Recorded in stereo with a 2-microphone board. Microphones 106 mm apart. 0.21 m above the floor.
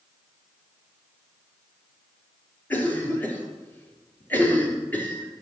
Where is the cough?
15° left (ahead or behind), 3.5 m.